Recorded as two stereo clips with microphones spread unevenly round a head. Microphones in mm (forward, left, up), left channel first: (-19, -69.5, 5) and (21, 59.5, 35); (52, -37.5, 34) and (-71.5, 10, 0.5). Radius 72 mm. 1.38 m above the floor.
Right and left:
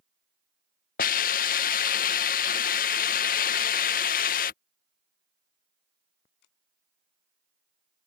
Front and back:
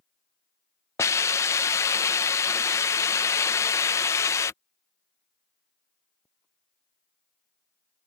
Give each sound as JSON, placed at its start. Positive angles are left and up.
{"t": 1.0, "sound": "a hiss", "azimuth_deg": -80}